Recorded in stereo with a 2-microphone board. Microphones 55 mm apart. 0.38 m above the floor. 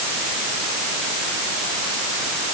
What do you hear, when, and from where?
Only background noise.